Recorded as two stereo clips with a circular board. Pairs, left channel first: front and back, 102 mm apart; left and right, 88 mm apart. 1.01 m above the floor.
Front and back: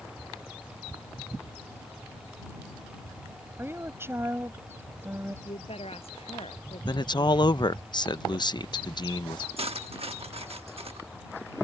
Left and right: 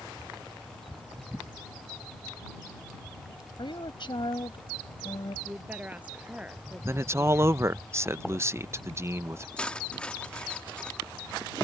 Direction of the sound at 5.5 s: 15° right.